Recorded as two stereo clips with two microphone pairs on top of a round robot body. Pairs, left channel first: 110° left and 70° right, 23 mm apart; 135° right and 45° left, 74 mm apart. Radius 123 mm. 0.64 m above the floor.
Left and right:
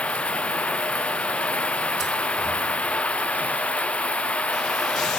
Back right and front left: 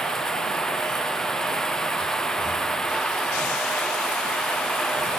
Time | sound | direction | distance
0.0 | running water | 140° left | ?